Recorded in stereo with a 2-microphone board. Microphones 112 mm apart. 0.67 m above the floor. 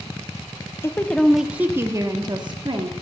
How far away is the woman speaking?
About 0.7 m.